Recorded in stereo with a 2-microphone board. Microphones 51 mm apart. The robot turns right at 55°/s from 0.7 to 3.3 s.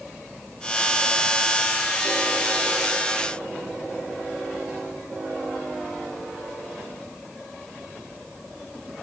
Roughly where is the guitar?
I don't hear a guitar.